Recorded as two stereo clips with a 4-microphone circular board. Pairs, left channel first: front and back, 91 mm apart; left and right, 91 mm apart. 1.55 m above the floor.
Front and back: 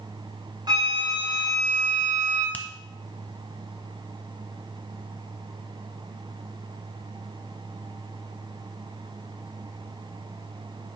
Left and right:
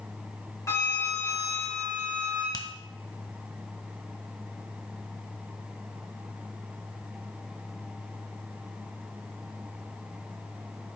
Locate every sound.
0.7 s a flute: 145° left, 4 m
2.5 s a finger snap: 70° left, 0.9 m